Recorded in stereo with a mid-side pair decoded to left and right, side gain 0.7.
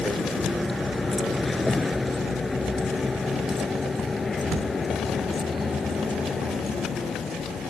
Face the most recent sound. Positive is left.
turn(degrees=25)